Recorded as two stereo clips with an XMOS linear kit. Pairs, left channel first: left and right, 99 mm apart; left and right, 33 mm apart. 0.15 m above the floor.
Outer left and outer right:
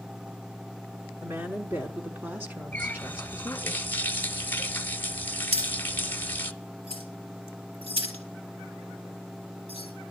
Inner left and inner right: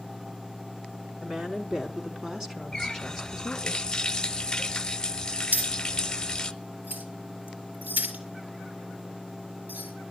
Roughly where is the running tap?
Left.